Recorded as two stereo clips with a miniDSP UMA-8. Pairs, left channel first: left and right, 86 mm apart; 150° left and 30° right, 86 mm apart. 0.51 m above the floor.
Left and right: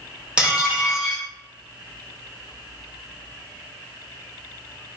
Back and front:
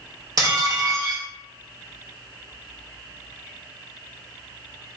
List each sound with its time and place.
0.4 s dishes clattering: 20° right, 0.8 m